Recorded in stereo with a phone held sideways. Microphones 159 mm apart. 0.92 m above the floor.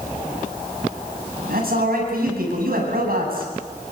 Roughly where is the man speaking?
Right.